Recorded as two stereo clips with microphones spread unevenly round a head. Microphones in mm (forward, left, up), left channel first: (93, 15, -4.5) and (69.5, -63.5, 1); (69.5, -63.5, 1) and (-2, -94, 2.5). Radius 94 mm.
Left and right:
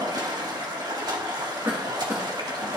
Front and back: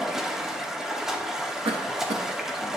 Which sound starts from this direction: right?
Running water, at 0.0 s.